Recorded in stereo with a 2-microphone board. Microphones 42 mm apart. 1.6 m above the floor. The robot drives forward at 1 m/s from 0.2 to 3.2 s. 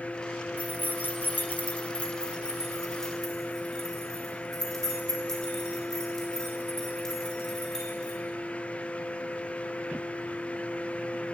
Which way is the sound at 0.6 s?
30° left (ahead or behind).